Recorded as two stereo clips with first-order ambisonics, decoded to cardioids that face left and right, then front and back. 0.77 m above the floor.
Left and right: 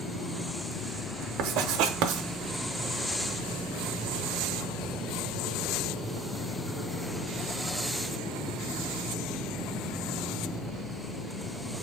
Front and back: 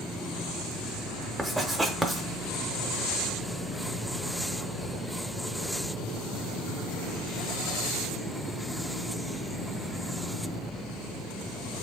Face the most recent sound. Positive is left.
turn(degrees=-95)